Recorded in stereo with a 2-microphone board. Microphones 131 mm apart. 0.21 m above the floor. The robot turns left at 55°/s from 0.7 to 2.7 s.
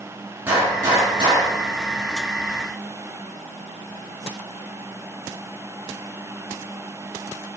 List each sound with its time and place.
0.5 s a gunshot: 15° right, 3 m; by 1.6 s 65° right, 3 m